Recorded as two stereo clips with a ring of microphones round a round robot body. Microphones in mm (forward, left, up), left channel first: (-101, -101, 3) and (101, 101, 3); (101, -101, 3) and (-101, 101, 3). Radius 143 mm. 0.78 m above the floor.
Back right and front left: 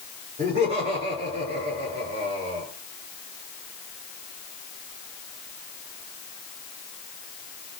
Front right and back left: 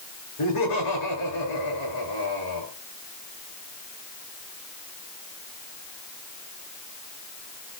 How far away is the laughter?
About 10 m.